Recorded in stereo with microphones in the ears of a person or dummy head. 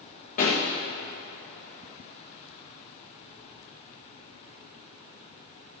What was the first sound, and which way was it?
A pop, 45° left (ahead or behind).